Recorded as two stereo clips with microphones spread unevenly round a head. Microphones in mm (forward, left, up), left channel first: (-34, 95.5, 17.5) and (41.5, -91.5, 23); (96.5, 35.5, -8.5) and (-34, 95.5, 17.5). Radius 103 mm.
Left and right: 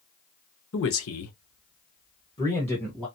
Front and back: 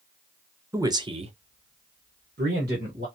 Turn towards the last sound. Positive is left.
turn(degrees=-160)